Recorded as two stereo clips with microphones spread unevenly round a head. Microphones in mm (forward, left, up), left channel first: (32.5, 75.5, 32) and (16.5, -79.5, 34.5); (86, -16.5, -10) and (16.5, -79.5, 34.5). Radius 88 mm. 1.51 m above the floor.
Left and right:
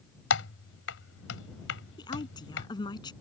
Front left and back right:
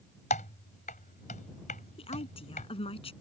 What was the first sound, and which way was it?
Typing on a keyboard, 95° left.